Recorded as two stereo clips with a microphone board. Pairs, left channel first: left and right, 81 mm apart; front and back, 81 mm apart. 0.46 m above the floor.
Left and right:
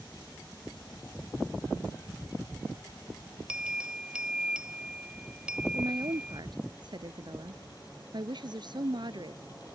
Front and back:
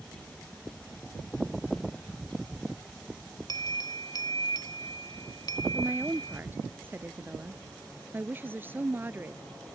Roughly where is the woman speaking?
Behind right.